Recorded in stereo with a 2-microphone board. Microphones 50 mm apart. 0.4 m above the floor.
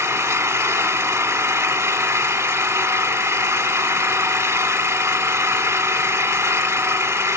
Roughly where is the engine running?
Right.